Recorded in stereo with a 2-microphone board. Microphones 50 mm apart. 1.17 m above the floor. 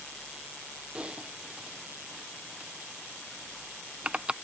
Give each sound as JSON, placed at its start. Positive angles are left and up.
{"t": 0.9, "sound": "typing on a keyboard", "side_deg": -20}